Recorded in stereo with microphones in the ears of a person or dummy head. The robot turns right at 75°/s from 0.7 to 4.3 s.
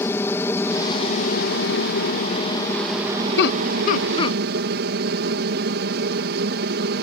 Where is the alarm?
I don't hear an alarm.